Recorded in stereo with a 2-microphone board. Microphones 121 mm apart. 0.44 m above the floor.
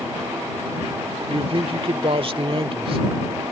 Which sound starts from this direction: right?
A man speaking, at 1.3 s.